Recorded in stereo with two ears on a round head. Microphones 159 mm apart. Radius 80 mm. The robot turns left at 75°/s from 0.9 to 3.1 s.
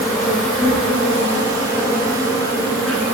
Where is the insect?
150° left, 1.2 m; by 3.1 s 15° right, 1.2 m.